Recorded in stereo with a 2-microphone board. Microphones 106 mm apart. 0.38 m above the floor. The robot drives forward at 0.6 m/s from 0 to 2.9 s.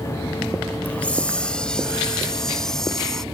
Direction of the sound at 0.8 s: 15° left (ahead or behind).